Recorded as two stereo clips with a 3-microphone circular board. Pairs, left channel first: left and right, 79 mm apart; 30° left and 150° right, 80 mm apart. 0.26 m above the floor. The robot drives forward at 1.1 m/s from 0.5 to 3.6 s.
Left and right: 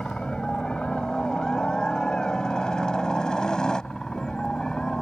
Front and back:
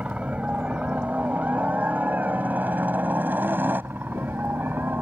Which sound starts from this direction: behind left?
A helicopter, at 0.0 s.